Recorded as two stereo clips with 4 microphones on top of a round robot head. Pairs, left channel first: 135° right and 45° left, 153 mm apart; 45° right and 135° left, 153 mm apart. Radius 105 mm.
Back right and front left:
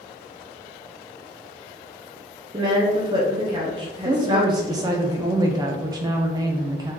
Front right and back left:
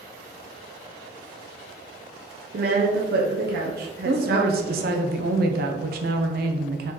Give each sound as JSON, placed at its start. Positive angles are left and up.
{"t": 2.5, "sound": "a woman speaking", "azimuth_deg": 110, "distance_m": 1.0}
{"t": 4.0, "sound": "a woman speaking", "azimuth_deg": 115, "distance_m": 0.7}